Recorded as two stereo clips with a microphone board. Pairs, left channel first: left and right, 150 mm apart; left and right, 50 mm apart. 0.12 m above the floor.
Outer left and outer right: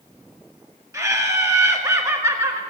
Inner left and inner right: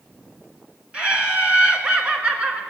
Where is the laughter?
20° right (ahead or behind), 1.4 m.